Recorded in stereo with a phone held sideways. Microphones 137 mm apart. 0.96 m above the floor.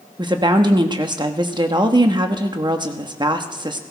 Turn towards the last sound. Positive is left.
turn(degrees=-30)  # may be behind; listen again after turning